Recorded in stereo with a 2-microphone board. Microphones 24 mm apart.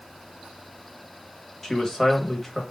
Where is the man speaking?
10° left (ahead or behind), 0.9 m.